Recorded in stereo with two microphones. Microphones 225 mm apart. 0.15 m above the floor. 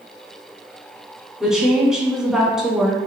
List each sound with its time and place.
1.4 s a woman speaking: 5° right (ahead or behind), 1.0 m